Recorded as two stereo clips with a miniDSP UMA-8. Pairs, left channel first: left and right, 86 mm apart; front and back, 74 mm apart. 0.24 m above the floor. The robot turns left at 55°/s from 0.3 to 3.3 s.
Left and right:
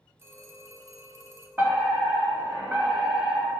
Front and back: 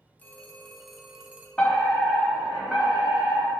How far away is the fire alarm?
About 2.5 m.